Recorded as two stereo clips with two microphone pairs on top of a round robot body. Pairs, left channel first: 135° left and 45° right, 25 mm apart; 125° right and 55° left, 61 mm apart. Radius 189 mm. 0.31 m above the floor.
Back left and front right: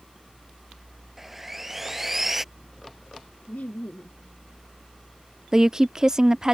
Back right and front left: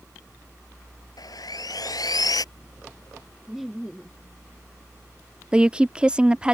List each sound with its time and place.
1.2 s sawing: 125° right
3.5 s laughter: 140° left
5.5 s a woman speaking: 15° right